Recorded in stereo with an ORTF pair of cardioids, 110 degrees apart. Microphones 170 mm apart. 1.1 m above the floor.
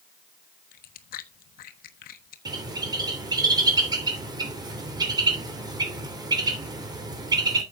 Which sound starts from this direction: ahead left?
Chewing, at 0.7 s.